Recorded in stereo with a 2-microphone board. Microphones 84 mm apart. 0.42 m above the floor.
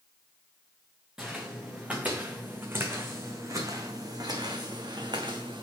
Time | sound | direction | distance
1.2 | footsteps | 10° right (ahead or behind) | 2 m